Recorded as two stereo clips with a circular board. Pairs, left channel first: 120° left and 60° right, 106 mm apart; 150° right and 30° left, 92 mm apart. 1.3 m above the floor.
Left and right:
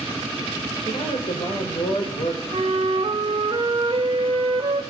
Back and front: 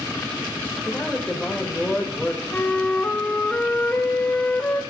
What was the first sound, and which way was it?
A man speaking, 125° left.